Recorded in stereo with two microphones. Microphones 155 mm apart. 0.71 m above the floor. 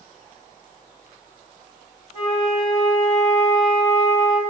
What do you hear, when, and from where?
2.1 s a flute: 45° left (ahead or behind), 1.6 m